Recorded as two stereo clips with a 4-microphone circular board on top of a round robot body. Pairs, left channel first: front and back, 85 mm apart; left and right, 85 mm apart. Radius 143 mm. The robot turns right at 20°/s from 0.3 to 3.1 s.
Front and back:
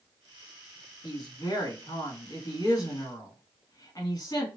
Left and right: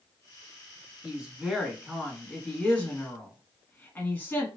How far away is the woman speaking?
About 1.6 m.